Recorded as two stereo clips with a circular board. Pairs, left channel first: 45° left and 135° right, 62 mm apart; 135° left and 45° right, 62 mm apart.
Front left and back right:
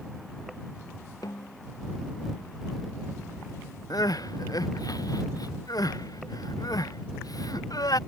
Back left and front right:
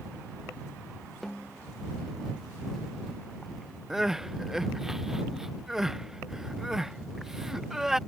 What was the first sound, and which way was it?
A snare drum, 50° left.